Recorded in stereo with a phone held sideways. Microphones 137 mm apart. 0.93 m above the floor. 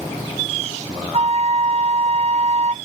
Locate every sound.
1.1 s a flute: 50° right (ahead or behind), 0.5 m